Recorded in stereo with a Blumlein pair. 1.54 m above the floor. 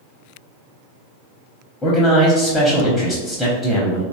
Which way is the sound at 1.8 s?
10° left.